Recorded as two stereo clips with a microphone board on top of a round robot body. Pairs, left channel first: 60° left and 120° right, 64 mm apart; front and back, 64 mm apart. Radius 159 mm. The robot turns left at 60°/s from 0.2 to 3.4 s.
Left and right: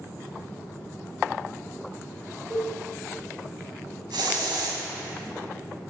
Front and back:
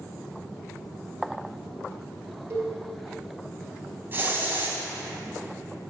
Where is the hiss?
120° right, 1.0 m.